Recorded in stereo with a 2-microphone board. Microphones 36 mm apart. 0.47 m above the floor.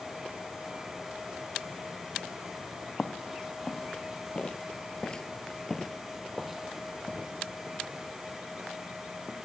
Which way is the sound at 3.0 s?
25° left (ahead or behind).